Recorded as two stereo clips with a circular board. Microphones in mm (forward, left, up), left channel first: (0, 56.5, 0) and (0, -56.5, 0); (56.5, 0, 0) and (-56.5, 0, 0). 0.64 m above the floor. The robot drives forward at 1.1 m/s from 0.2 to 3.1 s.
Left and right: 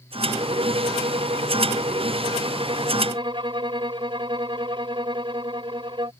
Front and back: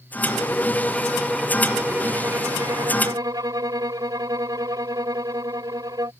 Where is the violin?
70° right; by 6.1 s 125° right.